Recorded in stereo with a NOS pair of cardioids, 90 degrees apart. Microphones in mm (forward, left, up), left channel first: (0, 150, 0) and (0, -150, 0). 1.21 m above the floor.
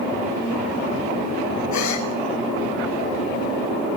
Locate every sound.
1.7 s a gasp: 65° left, 10 m